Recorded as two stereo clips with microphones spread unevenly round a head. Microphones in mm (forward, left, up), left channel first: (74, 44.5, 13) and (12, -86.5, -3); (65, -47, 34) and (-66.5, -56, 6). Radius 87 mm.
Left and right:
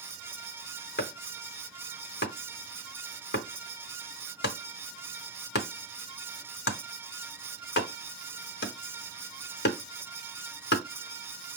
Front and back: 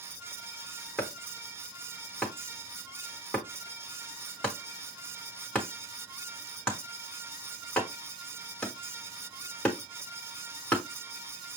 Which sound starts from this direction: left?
Chopping, at 1.0 s.